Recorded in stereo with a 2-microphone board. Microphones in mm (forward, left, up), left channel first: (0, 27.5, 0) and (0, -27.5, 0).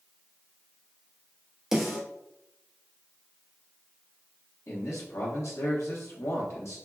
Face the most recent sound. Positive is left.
turn(degrees=60)  # may be behind; listen again after turning